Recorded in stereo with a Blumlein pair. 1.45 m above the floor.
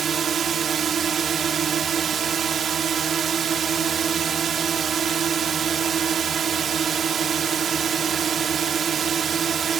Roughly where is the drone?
Ahead right.